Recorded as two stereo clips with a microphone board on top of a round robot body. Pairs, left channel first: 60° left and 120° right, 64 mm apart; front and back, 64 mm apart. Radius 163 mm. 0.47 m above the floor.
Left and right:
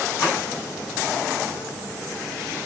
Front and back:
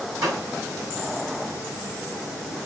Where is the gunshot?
120° left, 6.5 m.